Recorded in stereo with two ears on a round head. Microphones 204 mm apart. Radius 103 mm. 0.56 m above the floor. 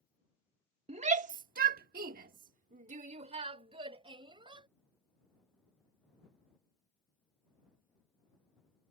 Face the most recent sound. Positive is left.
turn(degrees=-20)  # may be behind; listen again after turning